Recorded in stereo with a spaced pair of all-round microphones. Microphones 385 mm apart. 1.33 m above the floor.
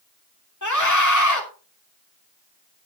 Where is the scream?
50° left (ahead or behind), 3 m.